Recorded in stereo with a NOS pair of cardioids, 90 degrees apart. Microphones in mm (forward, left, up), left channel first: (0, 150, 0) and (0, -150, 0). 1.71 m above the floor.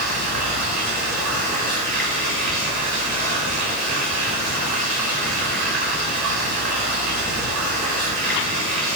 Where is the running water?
65° right, 5 m.